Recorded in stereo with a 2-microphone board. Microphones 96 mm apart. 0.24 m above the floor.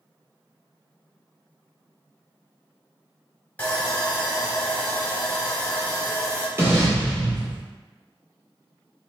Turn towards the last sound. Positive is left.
turn(degrees=-25)  # may be behind; listen again after turning